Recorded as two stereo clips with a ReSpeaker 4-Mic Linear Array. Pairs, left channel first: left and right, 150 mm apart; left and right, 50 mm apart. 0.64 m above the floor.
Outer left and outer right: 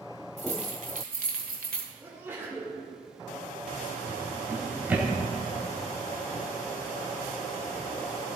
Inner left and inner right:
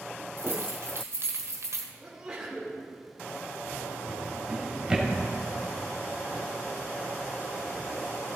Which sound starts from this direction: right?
Keys jangling, at 0.4 s.